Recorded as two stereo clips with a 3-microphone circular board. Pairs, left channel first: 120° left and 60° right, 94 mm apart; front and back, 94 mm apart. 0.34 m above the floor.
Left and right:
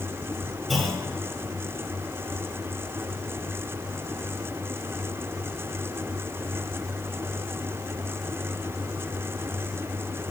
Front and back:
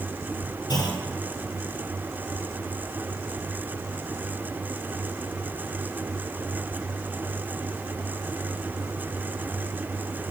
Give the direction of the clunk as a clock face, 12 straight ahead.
11 o'clock.